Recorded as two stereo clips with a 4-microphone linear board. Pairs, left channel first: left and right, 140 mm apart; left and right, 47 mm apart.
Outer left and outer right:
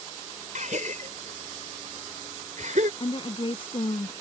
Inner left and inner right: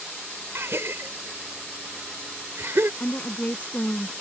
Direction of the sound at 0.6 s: 65° right (ahead or behind).